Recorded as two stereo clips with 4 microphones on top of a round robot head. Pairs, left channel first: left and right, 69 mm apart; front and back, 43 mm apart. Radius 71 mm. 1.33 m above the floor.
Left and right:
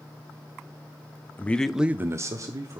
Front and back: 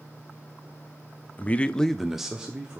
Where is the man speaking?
40° left, 0.6 m; by 2.8 s 110° right, 1.0 m.